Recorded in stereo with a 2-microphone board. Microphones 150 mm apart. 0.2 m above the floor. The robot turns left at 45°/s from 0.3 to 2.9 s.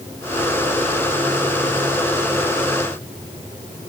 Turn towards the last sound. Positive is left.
No sound to turn to.